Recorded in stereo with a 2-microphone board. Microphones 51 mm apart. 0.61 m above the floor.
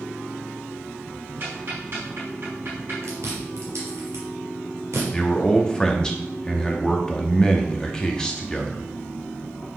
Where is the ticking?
50° right (ahead or behind), 4.5 m.